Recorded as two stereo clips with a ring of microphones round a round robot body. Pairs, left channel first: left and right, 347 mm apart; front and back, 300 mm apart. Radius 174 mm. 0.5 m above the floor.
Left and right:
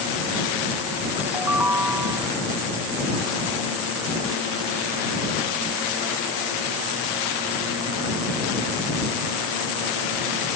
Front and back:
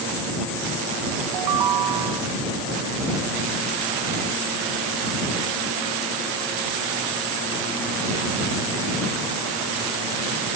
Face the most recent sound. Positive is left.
turn(degrees=-175)